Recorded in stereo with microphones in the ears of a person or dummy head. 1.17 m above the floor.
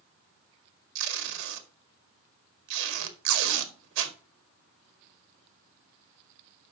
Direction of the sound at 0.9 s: 70° right (ahead or behind).